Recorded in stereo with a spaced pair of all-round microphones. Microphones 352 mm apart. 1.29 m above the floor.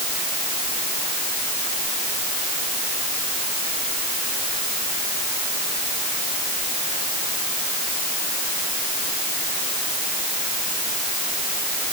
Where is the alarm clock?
No alarm clock in this recording.